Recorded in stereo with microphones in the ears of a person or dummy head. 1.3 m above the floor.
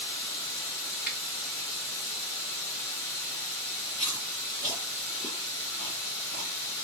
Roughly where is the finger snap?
Centre.